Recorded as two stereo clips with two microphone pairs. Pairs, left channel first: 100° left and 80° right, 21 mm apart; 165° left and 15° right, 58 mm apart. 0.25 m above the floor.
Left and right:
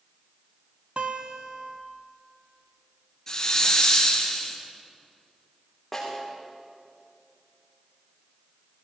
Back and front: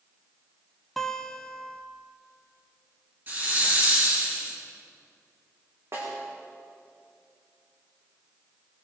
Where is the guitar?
110° right, 1.1 m.